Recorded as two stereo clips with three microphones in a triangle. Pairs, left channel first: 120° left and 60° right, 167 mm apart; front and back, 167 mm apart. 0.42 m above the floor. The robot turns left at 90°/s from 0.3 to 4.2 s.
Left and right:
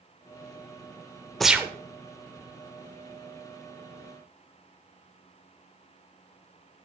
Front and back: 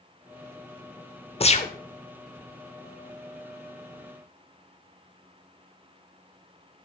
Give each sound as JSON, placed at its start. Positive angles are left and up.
{"t": 1.4, "sound": "a gunshot", "azimuth_deg": 35, "distance_m": 0.7}